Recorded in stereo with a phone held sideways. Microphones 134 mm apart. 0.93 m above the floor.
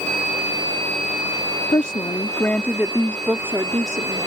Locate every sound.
1.7 s a woman speaking: 45° left (ahead or behind); by 4.3 s 40° right (ahead or behind)